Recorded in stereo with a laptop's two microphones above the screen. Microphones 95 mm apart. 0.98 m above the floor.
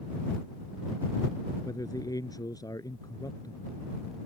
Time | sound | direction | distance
1.6 | a man speaking | 40° left (ahead or behind) | ?